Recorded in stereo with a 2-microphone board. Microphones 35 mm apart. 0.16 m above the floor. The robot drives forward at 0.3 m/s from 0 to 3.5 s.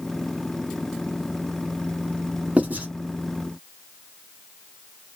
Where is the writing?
40° right (ahead or behind), 1.6 m.